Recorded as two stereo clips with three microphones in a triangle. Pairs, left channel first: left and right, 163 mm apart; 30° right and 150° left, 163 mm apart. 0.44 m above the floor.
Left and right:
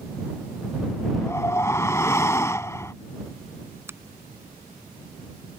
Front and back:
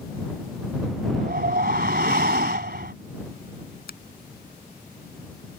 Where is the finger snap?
15° right.